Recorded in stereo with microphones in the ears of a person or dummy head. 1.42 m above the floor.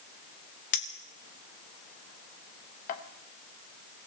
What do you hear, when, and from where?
0.7 s a clink: 45° left (ahead or behind), 1.1 m